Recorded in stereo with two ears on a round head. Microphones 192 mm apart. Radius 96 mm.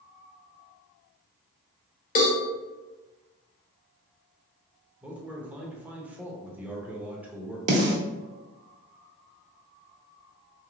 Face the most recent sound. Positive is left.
turn(degrees=-35)  # may be behind; listen again after turning